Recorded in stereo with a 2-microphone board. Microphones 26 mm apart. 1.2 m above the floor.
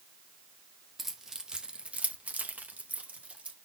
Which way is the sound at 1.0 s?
10° right (ahead or behind).